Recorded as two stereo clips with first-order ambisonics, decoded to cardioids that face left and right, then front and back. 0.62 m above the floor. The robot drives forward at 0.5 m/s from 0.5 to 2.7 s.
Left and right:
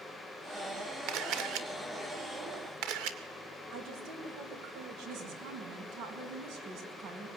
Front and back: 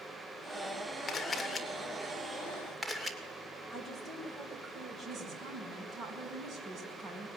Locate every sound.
1.1 s a camera shutter: 70° right, 2.0 m; by 3.2 s 95° right, 1.9 m
3.7 s a woman speaking: 115° right, 4 m
5.0 s a woman speaking: 125° right, 5 m